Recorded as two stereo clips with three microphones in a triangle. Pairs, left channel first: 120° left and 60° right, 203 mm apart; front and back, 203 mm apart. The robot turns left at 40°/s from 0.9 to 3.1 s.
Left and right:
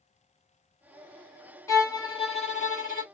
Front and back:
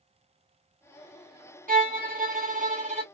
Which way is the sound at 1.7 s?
170° right.